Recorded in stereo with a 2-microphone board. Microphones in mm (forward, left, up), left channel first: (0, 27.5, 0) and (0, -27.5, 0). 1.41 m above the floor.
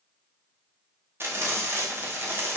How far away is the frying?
About 0.9 m.